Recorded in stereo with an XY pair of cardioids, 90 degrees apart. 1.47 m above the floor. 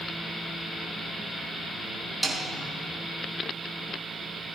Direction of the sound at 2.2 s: 10° right.